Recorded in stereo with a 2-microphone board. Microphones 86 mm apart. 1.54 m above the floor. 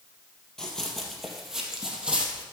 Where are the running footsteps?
5° left (ahead or behind), 2.5 m; by 2.4 s 10° right (ahead or behind), 2.5 m.